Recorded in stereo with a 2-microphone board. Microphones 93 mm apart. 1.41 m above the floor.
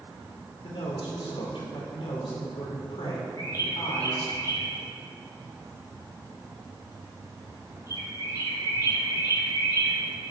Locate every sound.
0.6 s a man speaking: 70° left (ahead or behind), 5 m
3.4 s a bird: 45° left (ahead or behind), 5 m